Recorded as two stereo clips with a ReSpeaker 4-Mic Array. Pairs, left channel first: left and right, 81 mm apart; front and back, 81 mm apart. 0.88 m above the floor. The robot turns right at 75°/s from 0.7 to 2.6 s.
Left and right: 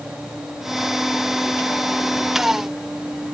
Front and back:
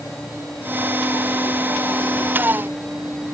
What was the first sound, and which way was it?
Only background noise.